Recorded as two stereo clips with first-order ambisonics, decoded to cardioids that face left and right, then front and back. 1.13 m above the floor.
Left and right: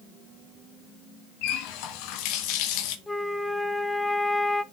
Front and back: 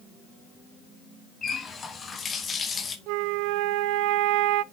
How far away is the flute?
About 0.5 m.